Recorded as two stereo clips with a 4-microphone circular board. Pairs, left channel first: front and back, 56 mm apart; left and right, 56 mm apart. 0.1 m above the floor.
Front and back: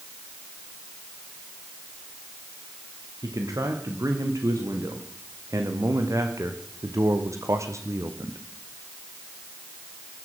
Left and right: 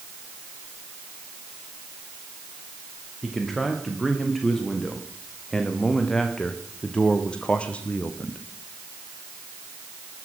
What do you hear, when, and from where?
3.2 s a man speaking: straight behind, 8 m; by 8.4 s 150° left, 4 m